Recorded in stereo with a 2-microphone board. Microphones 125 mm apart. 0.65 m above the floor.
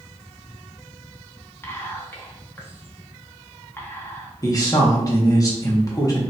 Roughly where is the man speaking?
Left.